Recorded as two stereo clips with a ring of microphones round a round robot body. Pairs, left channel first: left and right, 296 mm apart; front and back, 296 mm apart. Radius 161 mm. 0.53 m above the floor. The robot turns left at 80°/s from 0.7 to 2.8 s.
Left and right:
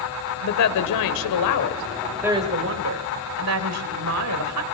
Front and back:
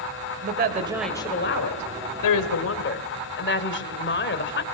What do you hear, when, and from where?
0.4 s a woman speaking: 120° left, 1.9 m; by 4.6 s 50° right, 1.9 m